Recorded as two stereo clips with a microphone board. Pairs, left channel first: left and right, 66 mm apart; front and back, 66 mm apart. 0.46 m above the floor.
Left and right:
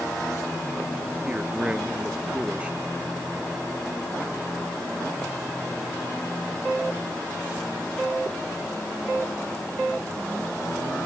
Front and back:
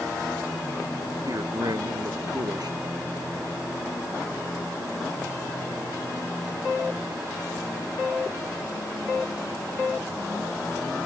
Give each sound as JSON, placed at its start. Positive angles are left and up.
{"t": 1.2, "sound": "a man speaking", "azimuth_deg": -160}